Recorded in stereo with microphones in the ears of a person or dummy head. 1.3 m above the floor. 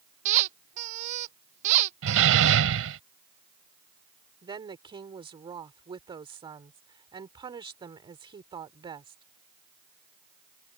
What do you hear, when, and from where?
0.2 s a squeak: 40° right (ahead or behind)
2.0 s a door slam: 75° right (ahead or behind)
4.4 s a woman speaking: 25° right (ahead or behind)